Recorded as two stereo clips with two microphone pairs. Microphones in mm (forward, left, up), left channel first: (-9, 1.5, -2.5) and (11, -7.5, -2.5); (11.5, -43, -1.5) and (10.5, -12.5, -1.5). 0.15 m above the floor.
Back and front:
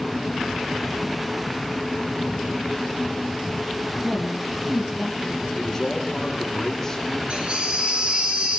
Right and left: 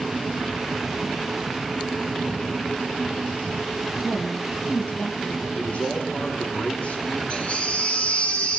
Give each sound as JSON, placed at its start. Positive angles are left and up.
{"t": 4.0, "sound": "a woman speaking", "azimuth_deg": -65, "distance_m": 4.0}
{"t": 5.5, "sound": "a man speaking", "azimuth_deg": -125, "distance_m": 5.0}
{"t": 7.3, "sound": "a baby crying", "azimuth_deg": -45, "distance_m": 4.0}